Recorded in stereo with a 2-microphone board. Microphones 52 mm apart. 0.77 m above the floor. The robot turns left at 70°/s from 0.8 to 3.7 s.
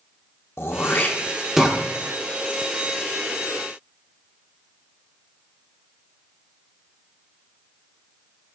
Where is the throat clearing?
50° left (ahead or behind), 0.7 m; by 1.8 s 15° right (ahead or behind), 0.7 m.